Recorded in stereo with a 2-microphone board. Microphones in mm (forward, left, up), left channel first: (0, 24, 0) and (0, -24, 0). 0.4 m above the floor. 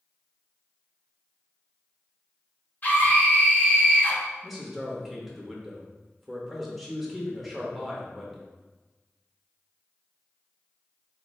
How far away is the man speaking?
About 0.9 m.